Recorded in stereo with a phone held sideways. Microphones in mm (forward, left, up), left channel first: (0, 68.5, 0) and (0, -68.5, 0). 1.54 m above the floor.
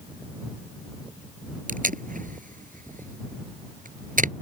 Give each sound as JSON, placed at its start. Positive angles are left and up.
{"t": 1.7, "sound": "tape being pulled", "side_deg": -75}